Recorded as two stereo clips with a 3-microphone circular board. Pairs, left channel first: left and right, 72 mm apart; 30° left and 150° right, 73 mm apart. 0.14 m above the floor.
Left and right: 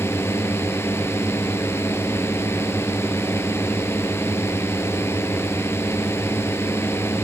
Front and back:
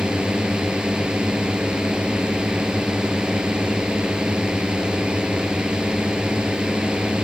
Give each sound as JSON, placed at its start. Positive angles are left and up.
{"t": 0.0, "sound": "a drone", "azimuth_deg": 135}